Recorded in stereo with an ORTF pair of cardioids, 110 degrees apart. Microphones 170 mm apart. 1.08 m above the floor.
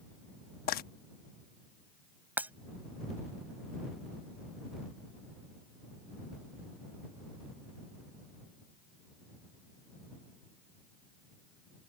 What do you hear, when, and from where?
0.7 s frying: 65° left
2.4 s breaking glass: 10° right